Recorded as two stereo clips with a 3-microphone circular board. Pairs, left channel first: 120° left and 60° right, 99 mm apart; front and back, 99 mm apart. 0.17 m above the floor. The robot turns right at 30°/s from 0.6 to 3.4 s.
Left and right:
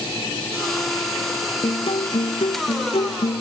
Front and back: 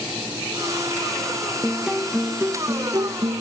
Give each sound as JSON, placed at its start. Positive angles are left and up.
{"t": 1.6, "sound": "a guitar", "azimuth_deg": 90}